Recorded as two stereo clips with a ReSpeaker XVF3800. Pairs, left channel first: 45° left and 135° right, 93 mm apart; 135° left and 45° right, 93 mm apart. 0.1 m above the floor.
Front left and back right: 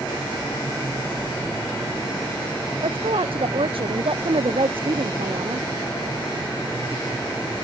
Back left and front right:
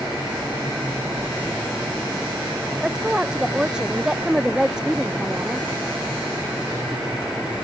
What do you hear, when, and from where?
2.8 s a woman speaking: 125° right